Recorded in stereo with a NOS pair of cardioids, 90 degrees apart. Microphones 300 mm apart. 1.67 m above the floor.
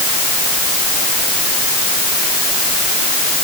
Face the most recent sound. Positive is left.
No sound to turn to.